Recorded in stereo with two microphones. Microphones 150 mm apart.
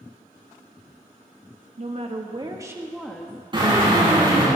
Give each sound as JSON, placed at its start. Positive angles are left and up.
{"t": 1.8, "sound": "a woman speaking", "side_deg": -50, "distance_m": 1.6}
{"t": 3.5, "sound": "a drill", "side_deg": -35, "distance_m": 6.5}